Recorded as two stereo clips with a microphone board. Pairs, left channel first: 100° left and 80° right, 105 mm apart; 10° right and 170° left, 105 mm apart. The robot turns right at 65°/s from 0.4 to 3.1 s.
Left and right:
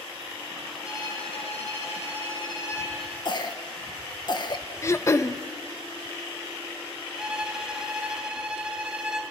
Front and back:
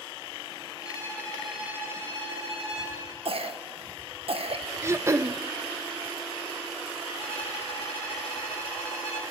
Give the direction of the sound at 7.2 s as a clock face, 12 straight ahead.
12 o'clock.